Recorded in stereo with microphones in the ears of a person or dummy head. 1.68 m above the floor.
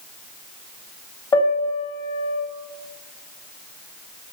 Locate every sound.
1.3 s a piano: 20° left (ahead or behind), 3 m